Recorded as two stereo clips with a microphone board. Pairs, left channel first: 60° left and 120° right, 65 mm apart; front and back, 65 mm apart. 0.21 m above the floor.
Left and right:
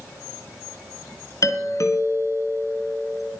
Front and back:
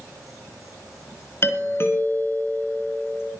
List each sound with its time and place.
1.4 s a doorbell: 45° left, 3.5 m